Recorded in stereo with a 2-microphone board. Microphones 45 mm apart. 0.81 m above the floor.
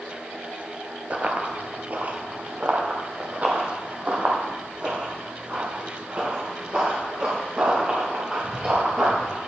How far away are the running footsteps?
About 0.9 m.